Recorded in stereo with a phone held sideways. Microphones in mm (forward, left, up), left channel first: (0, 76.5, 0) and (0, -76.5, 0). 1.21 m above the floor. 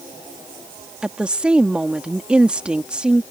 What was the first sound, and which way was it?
A woman speaking, 5° right (ahead or behind).